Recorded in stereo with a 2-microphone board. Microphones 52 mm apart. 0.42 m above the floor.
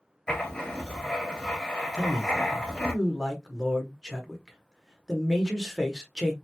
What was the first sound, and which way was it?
Writing, 10° left (ahead or behind).